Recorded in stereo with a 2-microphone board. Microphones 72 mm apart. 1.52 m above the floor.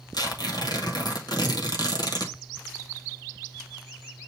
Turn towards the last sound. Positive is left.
turn(degrees=70)  # may be behind; listen again after turning